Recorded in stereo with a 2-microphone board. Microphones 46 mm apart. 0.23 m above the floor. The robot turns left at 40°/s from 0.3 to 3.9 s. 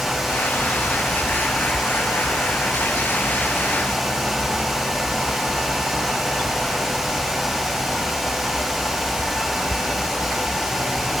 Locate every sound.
Only background noise.